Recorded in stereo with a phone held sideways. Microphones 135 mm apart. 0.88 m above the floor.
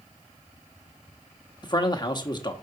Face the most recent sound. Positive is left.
turn(degrees=30)  # may be behind; listen again after turning